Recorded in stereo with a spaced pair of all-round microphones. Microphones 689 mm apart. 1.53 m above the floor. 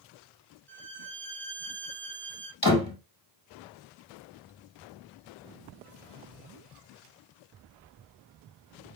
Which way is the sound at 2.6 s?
30° left (ahead or behind).